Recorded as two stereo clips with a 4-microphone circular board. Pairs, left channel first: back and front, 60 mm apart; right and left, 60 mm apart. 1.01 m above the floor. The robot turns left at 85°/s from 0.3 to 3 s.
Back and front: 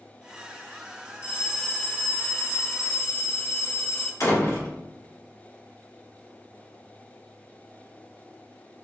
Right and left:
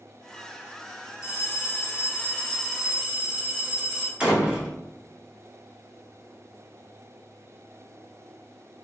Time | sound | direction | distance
1.2 | a bell | 65° right | 0.9 m
4.2 | a door slam | 160° left | 1.7 m